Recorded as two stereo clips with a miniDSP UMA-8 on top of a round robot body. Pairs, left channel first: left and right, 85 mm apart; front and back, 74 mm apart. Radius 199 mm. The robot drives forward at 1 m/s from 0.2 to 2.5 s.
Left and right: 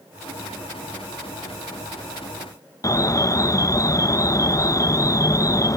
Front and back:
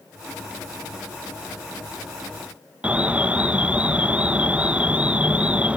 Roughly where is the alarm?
Behind left.